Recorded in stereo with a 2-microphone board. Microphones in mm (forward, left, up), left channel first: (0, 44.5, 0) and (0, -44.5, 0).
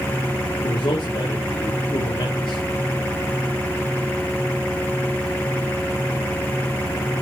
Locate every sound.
0.6 s a man speaking: 70° left (ahead or behind), 2 m